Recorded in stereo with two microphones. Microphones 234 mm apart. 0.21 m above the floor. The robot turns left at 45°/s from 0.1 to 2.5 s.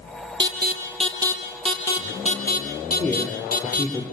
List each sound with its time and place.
0.4 s an alarm: 55° right (ahead or behind), 5 m; by 3.9 s 40° left (ahead or behind), 5 m
2.9 s a man speaking: 10° left (ahead or behind), 5 m